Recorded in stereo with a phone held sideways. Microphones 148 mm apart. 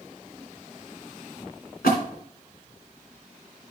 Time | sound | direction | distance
1.8 | a splash | 80° left | 2.5 m